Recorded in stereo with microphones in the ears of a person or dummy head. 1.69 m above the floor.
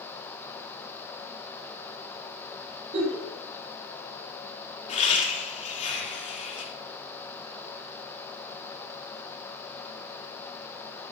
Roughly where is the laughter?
Left.